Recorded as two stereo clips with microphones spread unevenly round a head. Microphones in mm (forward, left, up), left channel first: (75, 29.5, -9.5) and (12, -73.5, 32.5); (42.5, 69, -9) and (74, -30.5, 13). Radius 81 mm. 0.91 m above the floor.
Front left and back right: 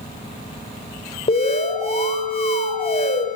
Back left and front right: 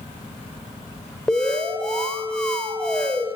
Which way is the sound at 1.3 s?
25° left.